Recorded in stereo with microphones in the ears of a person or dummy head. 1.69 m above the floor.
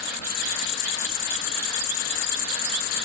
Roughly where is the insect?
Left.